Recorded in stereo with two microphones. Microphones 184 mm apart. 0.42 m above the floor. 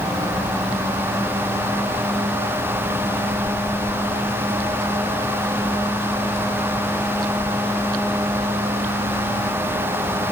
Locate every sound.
Only background noise.